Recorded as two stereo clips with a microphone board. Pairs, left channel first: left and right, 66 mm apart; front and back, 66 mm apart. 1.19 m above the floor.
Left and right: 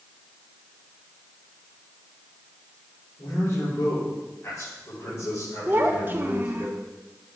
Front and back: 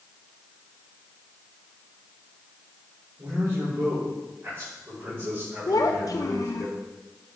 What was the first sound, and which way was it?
A man speaking, 130° left.